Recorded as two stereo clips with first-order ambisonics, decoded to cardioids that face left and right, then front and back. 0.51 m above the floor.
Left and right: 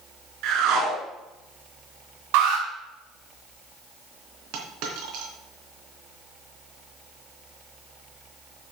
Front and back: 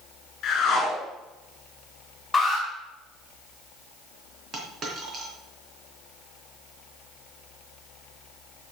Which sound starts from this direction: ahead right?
A whoosh, at 0.4 s.